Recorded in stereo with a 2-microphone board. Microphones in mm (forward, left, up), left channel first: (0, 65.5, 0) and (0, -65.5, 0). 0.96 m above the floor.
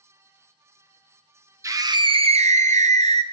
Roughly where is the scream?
Right.